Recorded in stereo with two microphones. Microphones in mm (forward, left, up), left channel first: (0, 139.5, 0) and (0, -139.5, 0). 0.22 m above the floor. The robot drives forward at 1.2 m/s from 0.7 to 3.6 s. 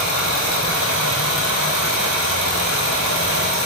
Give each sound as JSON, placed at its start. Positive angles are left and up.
{"t": 0.0, "sound": "running water", "side_deg": 85, "distance_m": 7.5}